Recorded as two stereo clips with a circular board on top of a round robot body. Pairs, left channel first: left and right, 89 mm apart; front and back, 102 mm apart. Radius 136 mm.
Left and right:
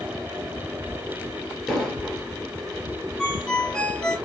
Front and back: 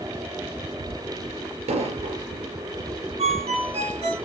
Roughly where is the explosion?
Behind.